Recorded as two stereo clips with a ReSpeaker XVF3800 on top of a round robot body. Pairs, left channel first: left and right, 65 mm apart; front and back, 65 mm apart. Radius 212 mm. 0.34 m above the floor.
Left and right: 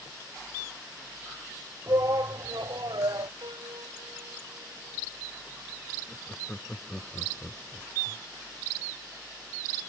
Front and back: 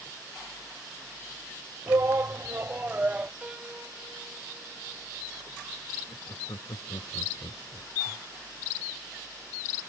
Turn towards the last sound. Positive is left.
turn(degrees=10)